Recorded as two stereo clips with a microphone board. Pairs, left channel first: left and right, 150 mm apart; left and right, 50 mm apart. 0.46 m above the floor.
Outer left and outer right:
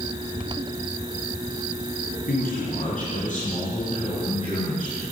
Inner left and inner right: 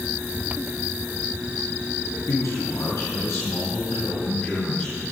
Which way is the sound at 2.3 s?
65° left (ahead or behind).